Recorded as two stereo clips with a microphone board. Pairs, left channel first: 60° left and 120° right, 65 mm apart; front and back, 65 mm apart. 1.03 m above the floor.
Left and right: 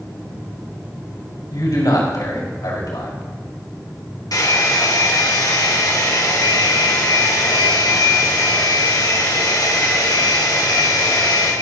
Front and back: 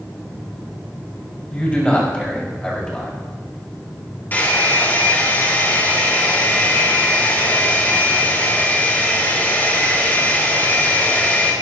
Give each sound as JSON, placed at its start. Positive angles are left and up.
{"t": 1.5, "sound": "a man speaking", "azimuth_deg": 70, "distance_m": 5.5}
{"t": 4.3, "sound": "a hair dryer", "azimuth_deg": 60, "distance_m": 3.0}